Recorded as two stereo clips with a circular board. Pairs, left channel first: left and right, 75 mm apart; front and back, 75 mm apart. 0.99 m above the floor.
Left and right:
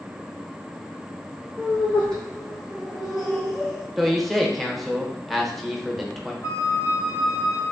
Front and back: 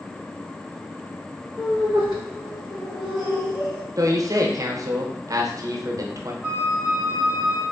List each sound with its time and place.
1.6 s laughter: 25° left, 1.2 m; by 3.9 s 5° right, 2.5 m
4.0 s a man speaking: straight behind, 0.6 m
6.4 s a flute: 95° left, 1.0 m